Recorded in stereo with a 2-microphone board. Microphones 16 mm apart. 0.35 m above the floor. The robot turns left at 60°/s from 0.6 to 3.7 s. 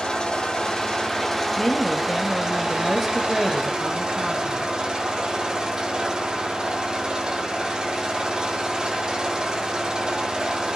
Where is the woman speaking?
95° left, 1.5 m; by 4.7 s 35° right, 1.5 m.